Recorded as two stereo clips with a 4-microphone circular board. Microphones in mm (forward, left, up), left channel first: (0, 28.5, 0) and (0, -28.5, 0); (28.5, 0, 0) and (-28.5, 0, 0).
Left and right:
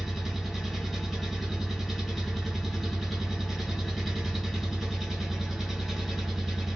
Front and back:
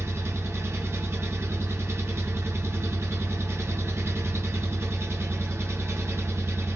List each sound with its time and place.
0.0 s an engine running: straight behind, 1.6 m